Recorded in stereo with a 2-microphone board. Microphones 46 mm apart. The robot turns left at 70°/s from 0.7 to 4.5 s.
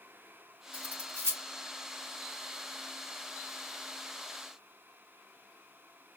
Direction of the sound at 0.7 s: 20° right (ahead or behind).